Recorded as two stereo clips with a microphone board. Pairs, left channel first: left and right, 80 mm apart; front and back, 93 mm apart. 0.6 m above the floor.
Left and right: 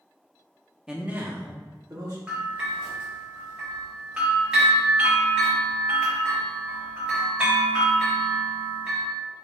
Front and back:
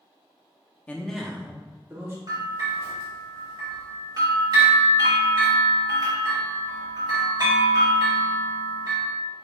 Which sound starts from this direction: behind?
A bell, at 2.3 s.